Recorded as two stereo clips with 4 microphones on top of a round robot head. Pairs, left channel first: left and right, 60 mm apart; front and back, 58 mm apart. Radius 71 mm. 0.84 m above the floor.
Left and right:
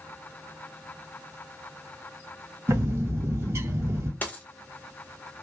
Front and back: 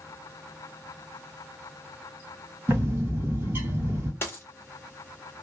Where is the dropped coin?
35° left, 0.6 m.